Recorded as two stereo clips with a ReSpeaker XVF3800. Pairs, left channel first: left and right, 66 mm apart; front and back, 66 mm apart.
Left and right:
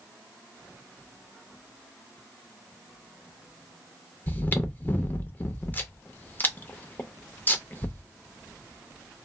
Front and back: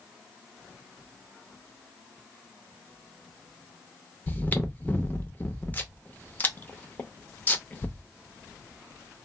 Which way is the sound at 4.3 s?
45° left.